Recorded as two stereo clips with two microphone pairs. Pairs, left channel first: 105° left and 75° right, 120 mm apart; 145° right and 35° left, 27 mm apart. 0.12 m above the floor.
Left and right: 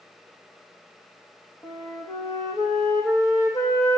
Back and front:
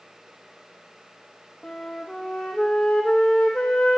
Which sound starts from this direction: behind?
A flute, at 1.6 s.